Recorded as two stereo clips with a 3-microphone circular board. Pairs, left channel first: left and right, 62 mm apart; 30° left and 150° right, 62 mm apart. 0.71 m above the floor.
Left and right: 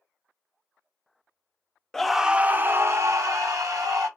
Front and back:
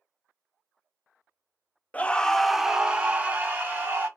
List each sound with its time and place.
1.9 s a scream: 20° left, 0.5 m; by 4.1 s 95° right, 1.3 m